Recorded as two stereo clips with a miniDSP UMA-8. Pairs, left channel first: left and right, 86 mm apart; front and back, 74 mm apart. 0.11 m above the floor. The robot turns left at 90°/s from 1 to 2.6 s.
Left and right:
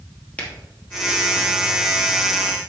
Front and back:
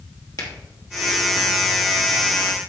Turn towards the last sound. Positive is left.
turn(degrees=-125)